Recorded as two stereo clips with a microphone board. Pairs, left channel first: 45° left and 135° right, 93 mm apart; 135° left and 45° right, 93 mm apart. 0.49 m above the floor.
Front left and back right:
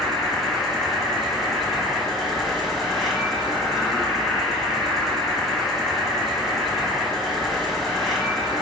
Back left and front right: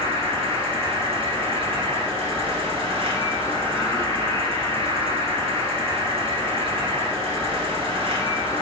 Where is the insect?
40° right, 1.1 m.